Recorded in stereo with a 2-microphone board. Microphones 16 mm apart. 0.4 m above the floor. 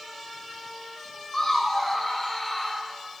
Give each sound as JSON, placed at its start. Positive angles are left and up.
{"t": 1.3, "sound": "laughter", "side_deg": 25, "distance_m": 3.5}